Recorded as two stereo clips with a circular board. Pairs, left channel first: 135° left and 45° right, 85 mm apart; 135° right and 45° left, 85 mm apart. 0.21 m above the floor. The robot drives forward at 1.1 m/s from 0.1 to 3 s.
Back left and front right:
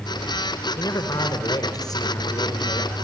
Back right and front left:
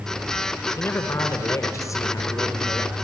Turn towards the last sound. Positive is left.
turn(degrees=175)